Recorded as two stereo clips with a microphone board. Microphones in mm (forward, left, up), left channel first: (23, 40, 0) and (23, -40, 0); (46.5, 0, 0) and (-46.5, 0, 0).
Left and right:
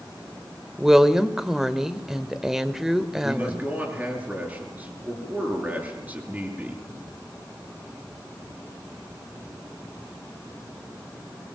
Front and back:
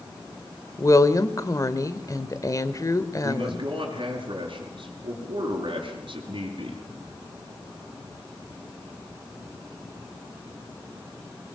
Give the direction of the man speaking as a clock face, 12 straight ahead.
5 o'clock.